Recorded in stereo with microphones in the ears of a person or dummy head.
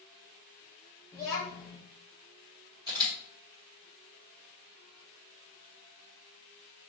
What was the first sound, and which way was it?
A child speaking, 10° left (ahead or behind).